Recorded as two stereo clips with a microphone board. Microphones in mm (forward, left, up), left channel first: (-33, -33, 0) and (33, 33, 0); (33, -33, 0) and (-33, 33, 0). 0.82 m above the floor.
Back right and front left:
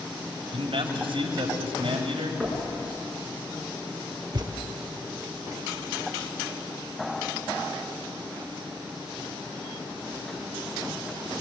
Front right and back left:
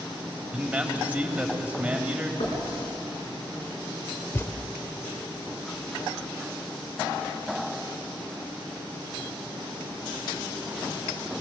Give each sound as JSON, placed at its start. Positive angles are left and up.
{"t": 0.5, "sound": "a man speaking", "azimuth_deg": 60, "distance_m": 3.5}
{"t": 2.4, "sound": "knocking", "azimuth_deg": -55, "distance_m": 6.0}
{"t": 4.3, "sound": "a thud", "azimuth_deg": 15, "distance_m": 0.8}